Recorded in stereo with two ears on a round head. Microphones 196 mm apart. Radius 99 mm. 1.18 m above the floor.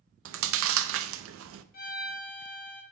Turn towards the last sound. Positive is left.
turn(degrees=45)  # may be behind; listen again after turning